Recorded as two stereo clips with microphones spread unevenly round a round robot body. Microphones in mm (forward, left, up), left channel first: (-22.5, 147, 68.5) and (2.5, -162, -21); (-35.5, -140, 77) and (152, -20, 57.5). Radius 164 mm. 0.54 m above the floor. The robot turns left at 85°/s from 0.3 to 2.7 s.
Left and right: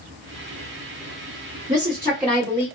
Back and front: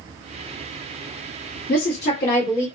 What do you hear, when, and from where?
1.7 s a woman speaking: 110° right, 1.5 m; by 2.7 s 170° left, 1.5 m